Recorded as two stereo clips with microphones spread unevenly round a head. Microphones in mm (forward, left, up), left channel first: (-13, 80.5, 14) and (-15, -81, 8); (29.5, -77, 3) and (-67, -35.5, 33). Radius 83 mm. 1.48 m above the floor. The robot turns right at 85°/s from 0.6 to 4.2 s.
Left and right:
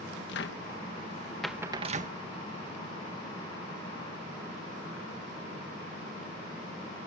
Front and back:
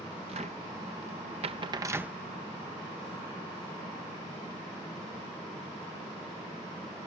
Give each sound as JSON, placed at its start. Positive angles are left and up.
{"t": 0.3, "sound": "a cupboard door", "azimuth_deg": 105}